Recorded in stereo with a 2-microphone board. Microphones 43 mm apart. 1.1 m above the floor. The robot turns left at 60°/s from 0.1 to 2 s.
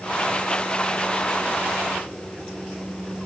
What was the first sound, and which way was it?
Only background noise.